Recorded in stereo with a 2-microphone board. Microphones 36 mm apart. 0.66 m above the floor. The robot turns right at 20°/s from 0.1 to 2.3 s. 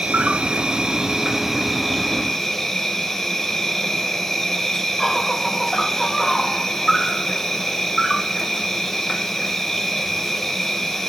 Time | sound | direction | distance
0.0 | an insect | 35° right | 0.8 m